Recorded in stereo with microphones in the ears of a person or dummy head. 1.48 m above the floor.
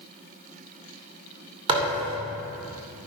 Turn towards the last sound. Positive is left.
turn(degrees=-25)  # may be behind; listen again after turning